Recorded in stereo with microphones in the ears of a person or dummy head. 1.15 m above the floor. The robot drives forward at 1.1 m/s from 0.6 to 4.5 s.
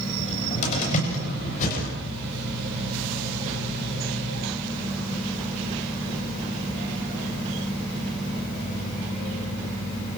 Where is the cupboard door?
40° left (ahead or behind), 8 m; by 1.9 s 45° left (ahead or behind), 7 m.